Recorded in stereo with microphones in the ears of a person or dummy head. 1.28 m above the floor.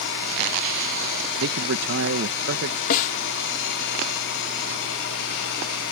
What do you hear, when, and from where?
1.4 s a man speaking: 65° right (ahead or behind)
2.9 s a snare drum: 50° left (ahead or behind)